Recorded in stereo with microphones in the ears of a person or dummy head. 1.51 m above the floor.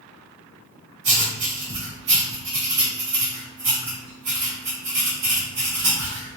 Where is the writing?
50° right (ahead or behind), 2 m.